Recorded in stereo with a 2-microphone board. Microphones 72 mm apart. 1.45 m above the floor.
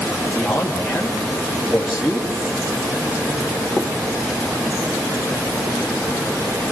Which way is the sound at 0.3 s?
Centre (ahead or behind).